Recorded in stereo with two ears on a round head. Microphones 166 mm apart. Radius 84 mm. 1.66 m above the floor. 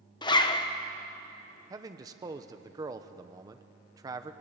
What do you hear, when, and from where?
0.2 s a zipper: 25° left (ahead or behind), 1.1 m
1.7 s a man speaking: 20° right (ahead or behind), 0.9 m